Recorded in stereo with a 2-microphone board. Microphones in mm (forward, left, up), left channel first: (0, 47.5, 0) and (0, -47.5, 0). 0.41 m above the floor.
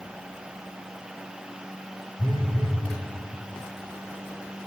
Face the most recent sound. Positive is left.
turn(degrees=55)  # may be behind; listen again after turning